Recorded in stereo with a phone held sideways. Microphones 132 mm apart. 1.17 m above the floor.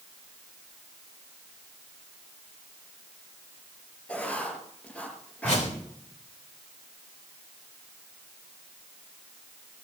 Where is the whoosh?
70° left (ahead or behind), 3.5 m.